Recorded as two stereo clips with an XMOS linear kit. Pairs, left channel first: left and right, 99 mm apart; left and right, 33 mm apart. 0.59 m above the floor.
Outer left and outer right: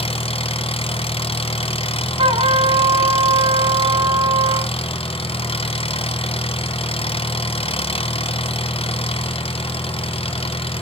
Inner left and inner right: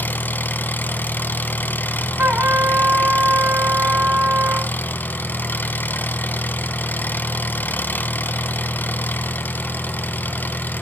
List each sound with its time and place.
0.0 s an engine running: 75° left (ahead or behind), 1.2 m
2.2 s a trumpet: 60° right (ahead or behind), 1.7 m